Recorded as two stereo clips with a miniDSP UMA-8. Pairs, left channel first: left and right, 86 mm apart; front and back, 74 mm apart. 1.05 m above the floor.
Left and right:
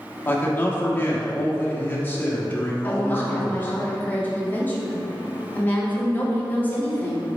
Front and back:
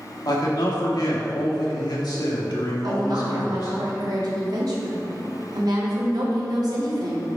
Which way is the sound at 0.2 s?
25° left.